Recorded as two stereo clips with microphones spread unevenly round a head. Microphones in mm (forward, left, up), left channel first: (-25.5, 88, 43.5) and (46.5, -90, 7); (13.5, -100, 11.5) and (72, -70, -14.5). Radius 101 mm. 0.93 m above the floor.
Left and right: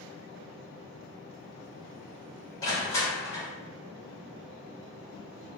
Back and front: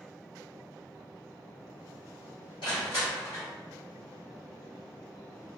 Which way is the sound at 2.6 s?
170° right.